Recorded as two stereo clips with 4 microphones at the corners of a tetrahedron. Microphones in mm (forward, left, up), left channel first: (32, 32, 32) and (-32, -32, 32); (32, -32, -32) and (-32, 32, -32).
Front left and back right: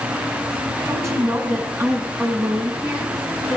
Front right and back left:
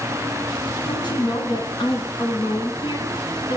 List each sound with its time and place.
0.8 s a woman speaking: 80° right, 5.5 m; by 3.6 s 65° right, 5.5 m